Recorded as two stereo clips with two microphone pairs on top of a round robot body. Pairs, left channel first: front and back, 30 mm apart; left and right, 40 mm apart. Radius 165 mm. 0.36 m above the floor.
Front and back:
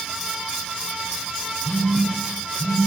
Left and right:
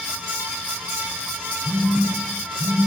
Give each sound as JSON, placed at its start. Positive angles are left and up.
{"t": 1.6, "sound": "a phone buzzing", "azimuth_deg": -75, "distance_m": 7.0}